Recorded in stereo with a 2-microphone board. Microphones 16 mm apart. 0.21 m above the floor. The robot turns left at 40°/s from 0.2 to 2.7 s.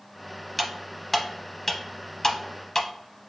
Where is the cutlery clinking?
5° right (ahead or behind), 0.7 m; by 2.9 s 25° left (ahead or behind), 0.7 m.